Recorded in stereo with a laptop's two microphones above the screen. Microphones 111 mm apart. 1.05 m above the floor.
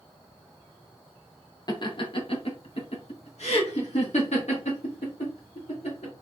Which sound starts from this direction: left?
Laughter, at 1.7 s.